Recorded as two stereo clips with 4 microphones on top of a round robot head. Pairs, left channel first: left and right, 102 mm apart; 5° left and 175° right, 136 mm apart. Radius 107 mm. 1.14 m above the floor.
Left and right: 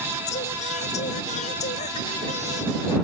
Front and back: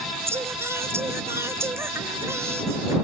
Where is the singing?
110° left.